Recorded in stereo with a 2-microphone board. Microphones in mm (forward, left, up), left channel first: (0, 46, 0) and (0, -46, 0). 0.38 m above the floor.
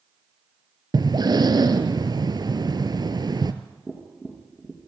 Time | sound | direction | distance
0.9 | breathing | 50° right (ahead or behind) | 1.2 m
3.9 | tapping | centre (ahead or behind) | 3.5 m